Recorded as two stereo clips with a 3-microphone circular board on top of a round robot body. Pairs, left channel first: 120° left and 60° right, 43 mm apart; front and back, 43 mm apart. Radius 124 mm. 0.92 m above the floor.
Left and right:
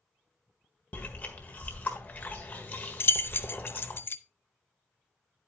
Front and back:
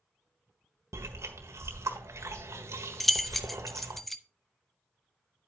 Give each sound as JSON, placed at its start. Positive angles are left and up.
{"t": 0.9, "sound": "chewing", "azimuth_deg": 175, "distance_m": 1.4}
{"t": 3.0, "sound": "keys jangling", "azimuth_deg": 85, "distance_m": 0.7}